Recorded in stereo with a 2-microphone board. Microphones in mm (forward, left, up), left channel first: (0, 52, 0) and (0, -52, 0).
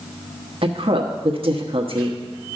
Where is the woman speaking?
60° right (ahead or behind), 1.2 m.